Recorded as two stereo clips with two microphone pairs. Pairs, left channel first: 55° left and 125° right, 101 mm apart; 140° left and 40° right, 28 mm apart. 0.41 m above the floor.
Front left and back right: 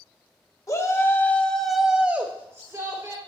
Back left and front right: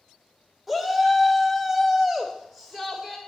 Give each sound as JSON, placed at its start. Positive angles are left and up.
{"t": 0.7, "sound": "a shout", "azimuth_deg": 50, "distance_m": 1.1}